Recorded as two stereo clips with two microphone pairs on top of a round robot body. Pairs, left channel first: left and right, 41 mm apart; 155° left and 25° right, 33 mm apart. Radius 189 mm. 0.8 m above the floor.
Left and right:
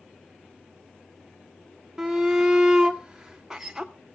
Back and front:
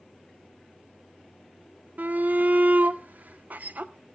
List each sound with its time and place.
2.0 s a shout: 20° right, 0.9 m